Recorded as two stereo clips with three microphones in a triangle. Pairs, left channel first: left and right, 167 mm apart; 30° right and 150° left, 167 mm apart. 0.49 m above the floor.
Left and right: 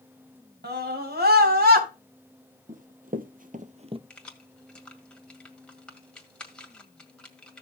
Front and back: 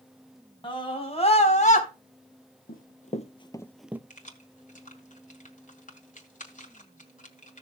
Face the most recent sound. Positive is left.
turn(degrees=5)